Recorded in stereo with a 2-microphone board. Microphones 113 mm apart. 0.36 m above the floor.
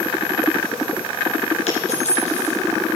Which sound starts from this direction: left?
A dropped coin, at 1.7 s.